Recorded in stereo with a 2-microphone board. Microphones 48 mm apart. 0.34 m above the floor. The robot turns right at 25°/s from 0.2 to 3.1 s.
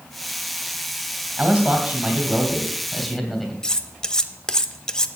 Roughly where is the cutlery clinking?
Centre.